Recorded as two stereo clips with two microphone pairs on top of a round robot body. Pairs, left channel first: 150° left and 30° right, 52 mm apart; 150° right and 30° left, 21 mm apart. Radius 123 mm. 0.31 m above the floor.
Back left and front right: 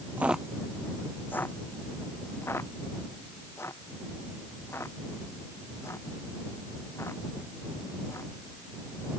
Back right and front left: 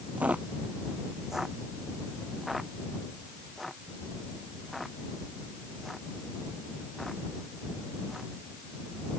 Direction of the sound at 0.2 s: 30° left.